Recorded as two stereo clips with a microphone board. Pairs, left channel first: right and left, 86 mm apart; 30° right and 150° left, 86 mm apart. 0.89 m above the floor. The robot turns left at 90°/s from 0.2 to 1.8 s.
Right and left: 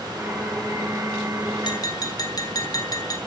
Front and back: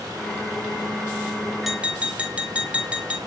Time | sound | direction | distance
1.6 | tapping | 120° right | 2.5 m